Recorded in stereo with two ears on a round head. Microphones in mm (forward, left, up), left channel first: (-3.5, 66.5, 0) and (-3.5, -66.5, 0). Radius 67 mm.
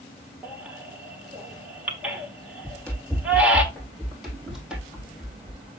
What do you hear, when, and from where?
0.4 s a baby crying: 10° right (ahead or behind), 1.4 m
2.6 s running footsteps: 10° left (ahead or behind), 3 m; by 5.7 s 10° right (ahead or behind), 2 m